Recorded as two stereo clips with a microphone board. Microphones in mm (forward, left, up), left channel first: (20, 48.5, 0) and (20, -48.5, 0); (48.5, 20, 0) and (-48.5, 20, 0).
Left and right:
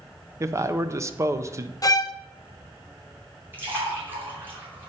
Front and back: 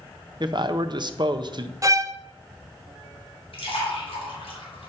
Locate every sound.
0.4 s a man speaking: 145° right, 0.7 m
1.8 s a violin: 130° left, 0.5 m
3.5 s a splash: 20° right, 4 m